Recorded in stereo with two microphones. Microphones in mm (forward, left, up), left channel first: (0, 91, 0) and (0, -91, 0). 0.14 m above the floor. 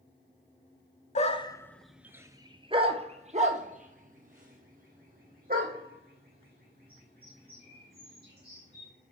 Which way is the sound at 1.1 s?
40° left (ahead or behind).